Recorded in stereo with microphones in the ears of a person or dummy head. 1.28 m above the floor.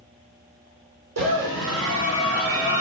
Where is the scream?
80° right, 3.5 m.